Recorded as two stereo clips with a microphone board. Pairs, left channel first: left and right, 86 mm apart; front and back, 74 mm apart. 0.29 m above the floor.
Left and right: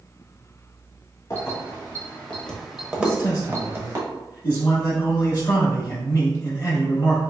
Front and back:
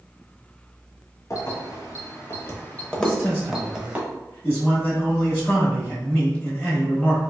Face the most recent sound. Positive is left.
turn(degrees=55)